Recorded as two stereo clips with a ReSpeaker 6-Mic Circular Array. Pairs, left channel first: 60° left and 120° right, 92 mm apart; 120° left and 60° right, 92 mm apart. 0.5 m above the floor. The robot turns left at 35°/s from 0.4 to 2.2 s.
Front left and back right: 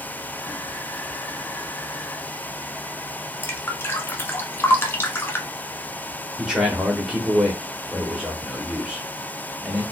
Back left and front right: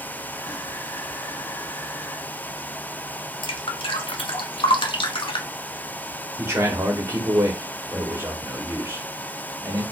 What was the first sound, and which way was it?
Dripping, 120° left.